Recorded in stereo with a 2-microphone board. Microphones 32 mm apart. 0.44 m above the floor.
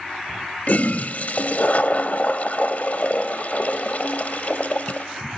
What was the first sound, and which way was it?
A toilet flushing, 55° left (ahead or behind).